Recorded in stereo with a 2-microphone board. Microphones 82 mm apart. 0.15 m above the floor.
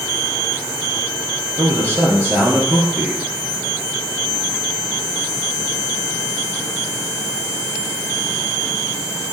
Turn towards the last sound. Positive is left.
turn(degrees=-30)  # may be behind; listen again after turning